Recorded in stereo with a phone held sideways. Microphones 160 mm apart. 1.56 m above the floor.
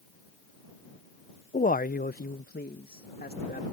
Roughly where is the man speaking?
Left.